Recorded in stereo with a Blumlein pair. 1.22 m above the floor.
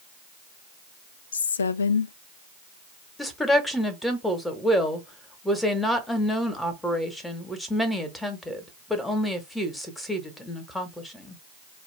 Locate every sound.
1.3 s a woman speaking: 70° left, 0.5 m
3.2 s a woman speaking: 5° left, 1.2 m